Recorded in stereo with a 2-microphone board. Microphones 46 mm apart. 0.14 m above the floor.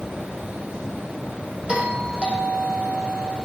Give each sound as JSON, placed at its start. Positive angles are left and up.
{"t": 1.7, "sound": "a doorbell", "side_deg": -20, "distance_m": 8.5}